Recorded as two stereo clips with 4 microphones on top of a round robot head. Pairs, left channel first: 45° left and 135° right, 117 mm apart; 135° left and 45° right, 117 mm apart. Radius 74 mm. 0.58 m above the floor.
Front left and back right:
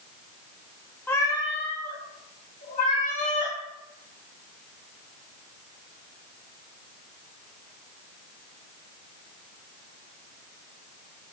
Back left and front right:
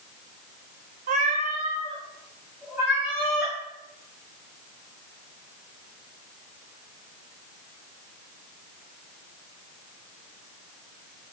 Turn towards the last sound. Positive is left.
turn(degrees=40)